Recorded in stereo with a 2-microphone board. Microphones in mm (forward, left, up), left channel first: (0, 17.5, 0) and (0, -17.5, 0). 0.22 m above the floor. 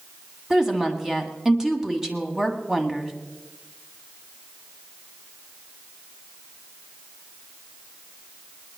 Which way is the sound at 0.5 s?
15° right (ahead or behind).